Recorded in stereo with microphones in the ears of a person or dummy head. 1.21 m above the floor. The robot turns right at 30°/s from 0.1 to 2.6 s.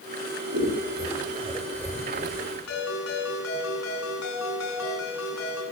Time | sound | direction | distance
0.5 | scissors | 50° right (ahead or behind) | 6 m
2.7 | a ringtone | 85° left | 8.5 m